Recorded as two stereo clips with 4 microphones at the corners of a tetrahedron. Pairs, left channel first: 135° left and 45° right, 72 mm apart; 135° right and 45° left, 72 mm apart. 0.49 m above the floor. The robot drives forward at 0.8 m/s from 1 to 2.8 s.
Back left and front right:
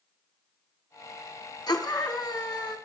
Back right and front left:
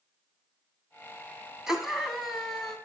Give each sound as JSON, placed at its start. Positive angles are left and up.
{"t": 1.7, "sound": "a scream", "azimuth_deg": 125, "distance_m": 5.0}